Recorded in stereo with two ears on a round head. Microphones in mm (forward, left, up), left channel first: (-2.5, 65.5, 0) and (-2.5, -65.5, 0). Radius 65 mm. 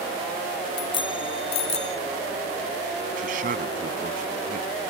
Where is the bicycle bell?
35° left (ahead or behind); by 2.0 s 45° left (ahead or behind).